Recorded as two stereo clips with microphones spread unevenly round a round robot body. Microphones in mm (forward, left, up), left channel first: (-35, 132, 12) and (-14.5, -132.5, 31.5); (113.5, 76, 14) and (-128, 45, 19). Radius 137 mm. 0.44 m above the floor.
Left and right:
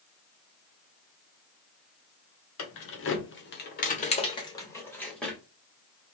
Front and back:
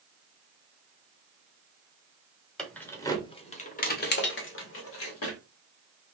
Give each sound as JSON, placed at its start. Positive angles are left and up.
{"t": 2.6, "sound": "keys jangling", "azimuth_deg": 95, "distance_m": 1.1}